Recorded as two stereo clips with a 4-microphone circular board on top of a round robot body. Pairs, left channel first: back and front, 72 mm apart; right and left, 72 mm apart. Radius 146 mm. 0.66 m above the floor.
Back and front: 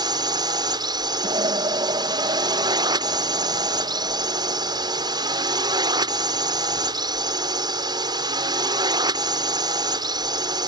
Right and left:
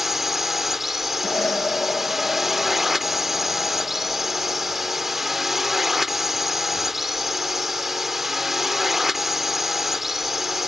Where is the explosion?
15° right.